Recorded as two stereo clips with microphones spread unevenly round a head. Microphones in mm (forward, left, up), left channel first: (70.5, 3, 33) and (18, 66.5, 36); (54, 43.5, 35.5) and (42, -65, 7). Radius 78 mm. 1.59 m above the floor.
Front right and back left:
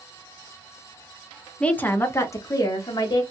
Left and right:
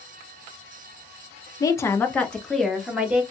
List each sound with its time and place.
1.6 s a woman speaking: 30° left, 0.7 m; by 3.2 s 15° right, 1.4 m